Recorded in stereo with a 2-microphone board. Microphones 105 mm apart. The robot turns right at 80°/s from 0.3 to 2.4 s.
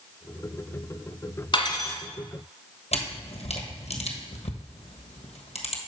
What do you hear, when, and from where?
1.5 s cutlery clinking: 115° left, 1.2 m; by 2.0 s 150° left, 1.2 m
2.9 s a camera shutter: 85° left, 1.3 m